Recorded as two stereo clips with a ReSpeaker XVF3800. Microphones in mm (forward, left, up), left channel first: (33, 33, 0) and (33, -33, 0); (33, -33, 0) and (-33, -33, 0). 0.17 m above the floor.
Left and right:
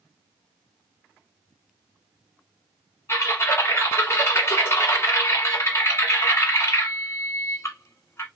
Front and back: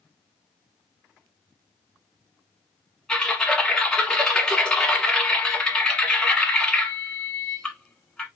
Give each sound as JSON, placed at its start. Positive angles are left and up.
{"t": 3.1, "sound": "typing on a keyboard", "azimuth_deg": 75, "distance_m": 1.1}